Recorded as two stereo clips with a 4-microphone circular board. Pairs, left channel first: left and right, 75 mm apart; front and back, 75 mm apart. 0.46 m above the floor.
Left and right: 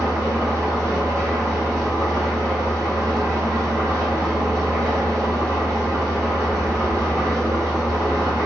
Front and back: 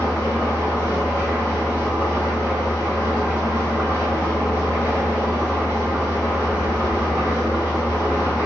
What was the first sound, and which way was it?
An engine running, 50° right.